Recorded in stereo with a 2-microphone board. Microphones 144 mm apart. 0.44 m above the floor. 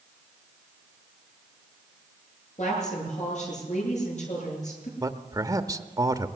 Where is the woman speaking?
55° left (ahead or behind), 9.5 m.